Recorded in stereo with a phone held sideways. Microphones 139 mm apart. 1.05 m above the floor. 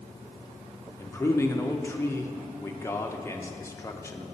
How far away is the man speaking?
About 0.5 m.